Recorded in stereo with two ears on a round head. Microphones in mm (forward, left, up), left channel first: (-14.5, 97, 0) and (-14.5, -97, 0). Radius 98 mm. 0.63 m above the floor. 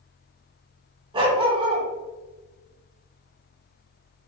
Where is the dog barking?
25° right (ahead or behind), 1.3 m.